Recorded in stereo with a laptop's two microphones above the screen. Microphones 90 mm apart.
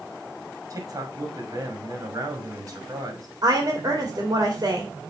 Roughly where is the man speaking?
Right.